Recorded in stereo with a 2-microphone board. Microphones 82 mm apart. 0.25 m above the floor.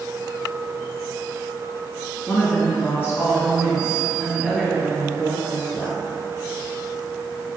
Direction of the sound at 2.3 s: 30° left (ahead or behind).